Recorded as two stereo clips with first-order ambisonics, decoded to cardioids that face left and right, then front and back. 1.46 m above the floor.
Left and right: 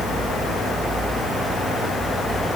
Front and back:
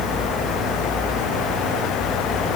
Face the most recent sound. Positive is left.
No sound to turn to.